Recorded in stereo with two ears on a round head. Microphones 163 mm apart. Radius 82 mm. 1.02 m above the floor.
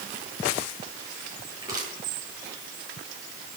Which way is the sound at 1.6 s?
20° right (ahead or behind).